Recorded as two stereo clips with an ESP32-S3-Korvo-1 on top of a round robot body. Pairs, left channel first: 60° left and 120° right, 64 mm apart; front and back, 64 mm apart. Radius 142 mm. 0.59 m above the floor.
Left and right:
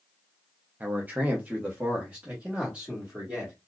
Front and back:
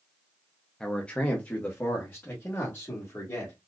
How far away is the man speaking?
About 0.8 m.